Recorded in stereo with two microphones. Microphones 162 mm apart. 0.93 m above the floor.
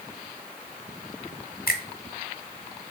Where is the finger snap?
70° left (ahead or behind), 1.1 m.